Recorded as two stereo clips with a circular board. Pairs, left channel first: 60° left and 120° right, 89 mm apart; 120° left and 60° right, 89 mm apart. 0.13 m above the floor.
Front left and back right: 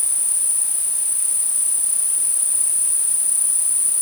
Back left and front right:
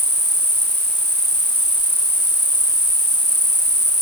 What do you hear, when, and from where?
0.0 s an insect: 155° right